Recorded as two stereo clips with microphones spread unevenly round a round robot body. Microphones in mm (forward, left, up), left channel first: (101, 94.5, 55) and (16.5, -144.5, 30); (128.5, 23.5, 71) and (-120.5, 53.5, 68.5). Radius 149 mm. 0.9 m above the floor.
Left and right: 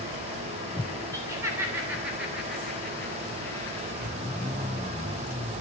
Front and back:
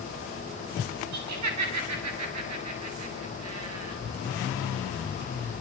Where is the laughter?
170° left, 7.5 m; by 4.0 s 150° left, 7.5 m.